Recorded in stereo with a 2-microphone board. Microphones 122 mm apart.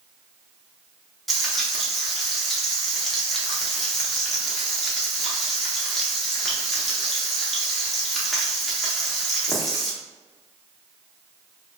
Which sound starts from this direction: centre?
Frying, at 1.3 s.